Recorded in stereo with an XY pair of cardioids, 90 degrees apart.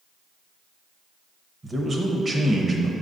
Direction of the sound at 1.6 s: 35° right.